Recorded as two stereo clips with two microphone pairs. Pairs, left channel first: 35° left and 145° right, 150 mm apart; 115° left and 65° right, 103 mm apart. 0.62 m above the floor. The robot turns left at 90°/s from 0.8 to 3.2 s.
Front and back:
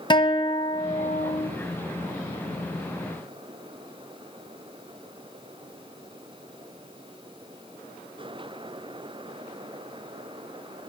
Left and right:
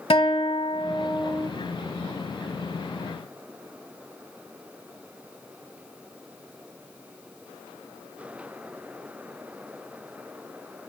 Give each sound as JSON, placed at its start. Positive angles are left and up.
{"t": 0.1, "sound": "a guitar", "azimuth_deg": 90, "distance_m": 1.2}